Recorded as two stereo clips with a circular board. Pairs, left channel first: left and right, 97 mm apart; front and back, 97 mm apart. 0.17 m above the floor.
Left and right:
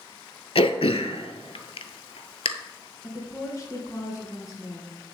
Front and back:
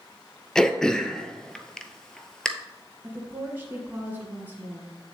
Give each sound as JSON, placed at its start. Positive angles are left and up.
{"t": 0.6, "sound": "throat clearing", "azimuth_deg": 85, "distance_m": 0.6}
{"t": 3.0, "sound": "a woman speaking", "azimuth_deg": 120, "distance_m": 1.8}